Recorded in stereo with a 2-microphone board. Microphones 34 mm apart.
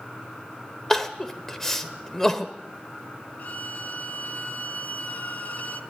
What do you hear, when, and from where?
0.9 s crying: 10° left (ahead or behind), 1.4 m
3.4 s a violin: 50° left (ahead or behind), 1.6 m